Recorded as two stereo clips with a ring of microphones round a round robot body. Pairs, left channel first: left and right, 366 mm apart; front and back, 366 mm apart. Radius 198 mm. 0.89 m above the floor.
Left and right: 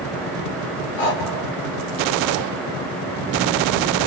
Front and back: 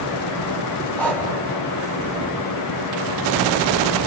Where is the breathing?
85° left, 2.5 m.